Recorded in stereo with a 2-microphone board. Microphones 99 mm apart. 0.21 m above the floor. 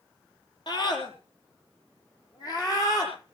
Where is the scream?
50° left (ahead or behind), 5.5 m; by 3.4 s 40° left (ahead or behind), 9 m.